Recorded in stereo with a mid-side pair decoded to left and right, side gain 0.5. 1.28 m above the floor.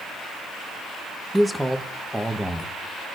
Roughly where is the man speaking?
Ahead.